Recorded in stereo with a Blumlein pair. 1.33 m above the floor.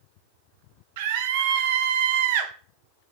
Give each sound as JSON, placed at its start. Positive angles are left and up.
{"t": 1.0, "sound": "a scream", "azimuth_deg": -50, "distance_m": 0.8}